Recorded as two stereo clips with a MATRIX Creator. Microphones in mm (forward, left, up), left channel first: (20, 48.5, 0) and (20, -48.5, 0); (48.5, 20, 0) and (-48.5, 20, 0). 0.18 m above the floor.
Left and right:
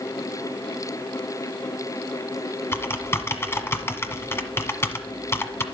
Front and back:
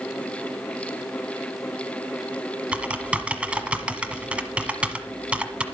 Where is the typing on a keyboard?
115° left, 1.3 m.